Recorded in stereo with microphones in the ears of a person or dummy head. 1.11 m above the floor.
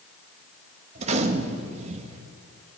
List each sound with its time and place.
0.9 s a gunshot: 45° right (ahead or behind), 1.7 m